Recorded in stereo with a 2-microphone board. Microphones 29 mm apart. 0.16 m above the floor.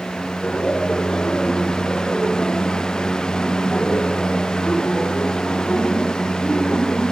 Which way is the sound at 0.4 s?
40° left (ahead or behind).